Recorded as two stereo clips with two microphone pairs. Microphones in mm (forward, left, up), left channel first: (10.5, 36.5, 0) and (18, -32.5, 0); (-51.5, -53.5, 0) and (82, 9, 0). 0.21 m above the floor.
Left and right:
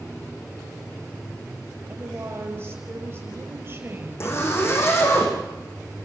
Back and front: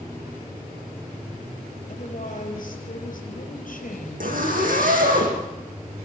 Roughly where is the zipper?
Ahead left.